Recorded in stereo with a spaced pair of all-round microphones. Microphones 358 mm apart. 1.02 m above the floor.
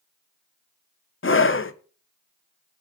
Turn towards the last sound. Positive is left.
turn(degrees=35)  # may be behind; listen again after turning